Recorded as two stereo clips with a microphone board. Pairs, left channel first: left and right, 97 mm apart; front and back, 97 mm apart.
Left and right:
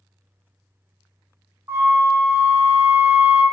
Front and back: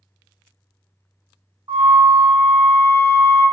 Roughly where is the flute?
Behind right.